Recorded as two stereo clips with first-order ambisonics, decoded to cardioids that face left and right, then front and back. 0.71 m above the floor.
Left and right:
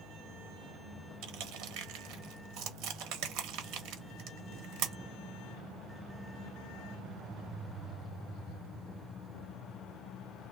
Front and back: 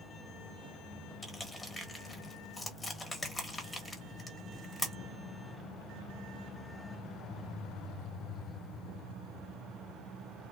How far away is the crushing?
About 0.9 m.